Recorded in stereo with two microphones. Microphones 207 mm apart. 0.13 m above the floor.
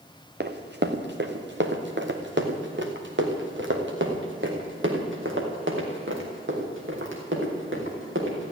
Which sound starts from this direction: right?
Running footsteps, at 0.4 s.